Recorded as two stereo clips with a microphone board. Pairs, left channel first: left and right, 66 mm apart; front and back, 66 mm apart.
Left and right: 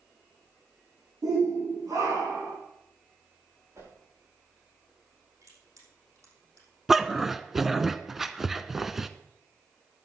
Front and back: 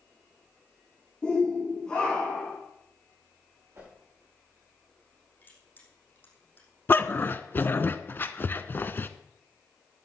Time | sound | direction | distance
1.2 | a shout | 80° right | 8.5 m
3.7 | a whoosh | 130° right | 9 m
5.4 | crushing | 60° right | 5.5 m
6.9 | a dog barking | 10° right | 0.7 m